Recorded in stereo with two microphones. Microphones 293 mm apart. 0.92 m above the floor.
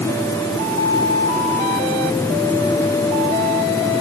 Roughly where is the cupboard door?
I don't hear a cupboard door.